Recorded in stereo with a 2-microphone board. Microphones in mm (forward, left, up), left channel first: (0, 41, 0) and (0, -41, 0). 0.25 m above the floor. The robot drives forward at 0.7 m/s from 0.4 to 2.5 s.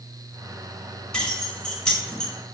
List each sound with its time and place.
1.1 s keys jangling: 10° left (ahead or behind), 1.5 m